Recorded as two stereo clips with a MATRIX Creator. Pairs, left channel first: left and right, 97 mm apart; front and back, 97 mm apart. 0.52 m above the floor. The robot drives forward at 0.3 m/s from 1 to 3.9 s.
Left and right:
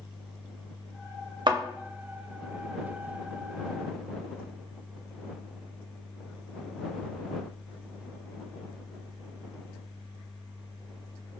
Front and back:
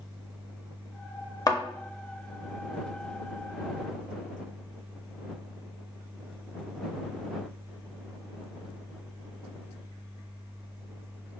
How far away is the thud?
About 0.6 m.